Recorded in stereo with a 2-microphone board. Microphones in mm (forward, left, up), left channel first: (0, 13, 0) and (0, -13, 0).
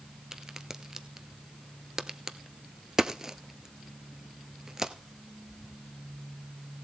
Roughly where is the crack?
Right.